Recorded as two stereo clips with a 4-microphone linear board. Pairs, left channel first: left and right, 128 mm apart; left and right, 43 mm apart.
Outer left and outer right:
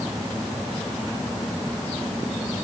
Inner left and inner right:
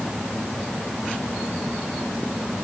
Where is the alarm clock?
I don't hear an alarm clock.